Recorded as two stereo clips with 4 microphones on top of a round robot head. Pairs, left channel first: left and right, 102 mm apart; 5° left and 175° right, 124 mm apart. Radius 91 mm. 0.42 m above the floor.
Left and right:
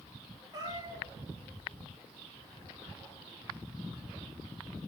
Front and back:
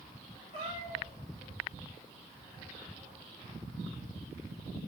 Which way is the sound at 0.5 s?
40° right.